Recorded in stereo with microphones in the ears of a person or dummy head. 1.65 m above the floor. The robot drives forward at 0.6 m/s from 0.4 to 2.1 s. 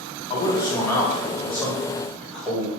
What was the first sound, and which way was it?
A man speaking, 30° left (ahead or behind).